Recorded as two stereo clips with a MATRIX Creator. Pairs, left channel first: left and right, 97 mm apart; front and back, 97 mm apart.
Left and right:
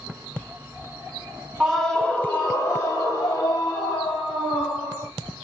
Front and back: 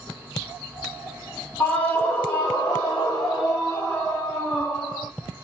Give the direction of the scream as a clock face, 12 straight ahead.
1 o'clock.